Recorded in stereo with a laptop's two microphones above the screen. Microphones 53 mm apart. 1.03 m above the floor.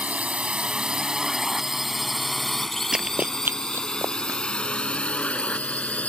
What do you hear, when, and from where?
0.0 s a drone: 25° right (ahead or behind); by 6.1 s 30° left (ahead or behind)
2.9 s running footsteps: 10° right (ahead or behind); by 4.4 s 65° right (ahead or behind)